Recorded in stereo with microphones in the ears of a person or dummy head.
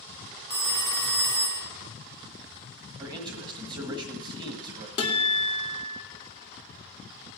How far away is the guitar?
About 2 m.